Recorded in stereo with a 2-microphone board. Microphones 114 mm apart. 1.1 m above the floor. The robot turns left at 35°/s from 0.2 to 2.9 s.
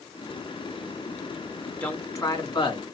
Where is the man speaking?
170° left, 2.5 m; by 2.8 s 130° left, 2.5 m.